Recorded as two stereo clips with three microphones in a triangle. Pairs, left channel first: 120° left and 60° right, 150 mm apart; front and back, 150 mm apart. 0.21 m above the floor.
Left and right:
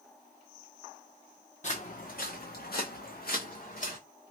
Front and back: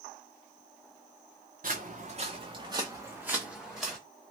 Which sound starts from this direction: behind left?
Footsteps, at 1.6 s.